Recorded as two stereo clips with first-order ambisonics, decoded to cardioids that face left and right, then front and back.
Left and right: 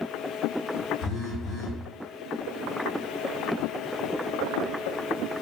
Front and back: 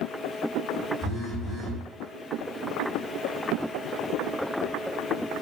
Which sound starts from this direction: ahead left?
A phone buzzing, at 1.0 s.